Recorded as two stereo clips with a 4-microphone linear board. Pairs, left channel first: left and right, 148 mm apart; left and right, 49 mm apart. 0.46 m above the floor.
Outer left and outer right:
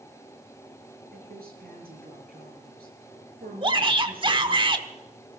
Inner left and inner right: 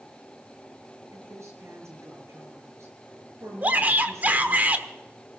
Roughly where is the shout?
Right.